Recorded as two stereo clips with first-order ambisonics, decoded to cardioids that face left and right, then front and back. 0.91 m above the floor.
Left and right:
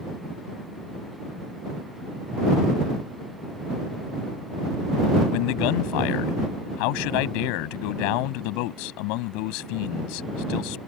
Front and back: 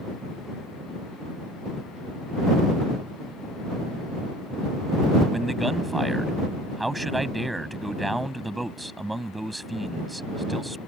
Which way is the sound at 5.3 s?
95° left.